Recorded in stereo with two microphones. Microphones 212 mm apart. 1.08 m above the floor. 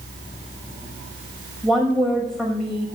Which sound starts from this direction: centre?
A woman speaking, at 1.6 s.